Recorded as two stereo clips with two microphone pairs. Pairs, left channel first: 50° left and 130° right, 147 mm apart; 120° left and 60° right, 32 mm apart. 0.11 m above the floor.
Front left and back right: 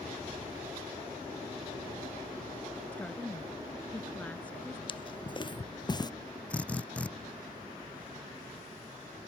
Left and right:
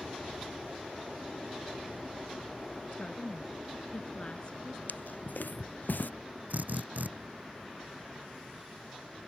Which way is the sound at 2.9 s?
125° left.